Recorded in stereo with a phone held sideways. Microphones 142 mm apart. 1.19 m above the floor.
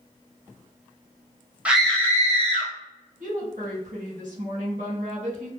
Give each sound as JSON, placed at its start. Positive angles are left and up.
{"t": 1.6, "sound": "a scream", "side_deg": -10, "distance_m": 0.5}
{"t": 3.2, "sound": "a woman speaking", "side_deg": -65, "distance_m": 1.3}